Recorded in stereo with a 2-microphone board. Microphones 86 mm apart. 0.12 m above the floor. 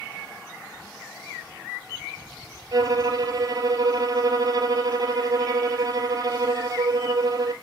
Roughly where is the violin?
Right.